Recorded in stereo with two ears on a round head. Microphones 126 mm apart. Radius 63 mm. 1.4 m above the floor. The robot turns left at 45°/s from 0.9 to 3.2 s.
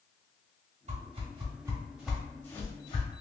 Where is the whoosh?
50° right (ahead or behind), 1.1 m; by 3.2 s 45° left (ahead or behind), 1.1 m.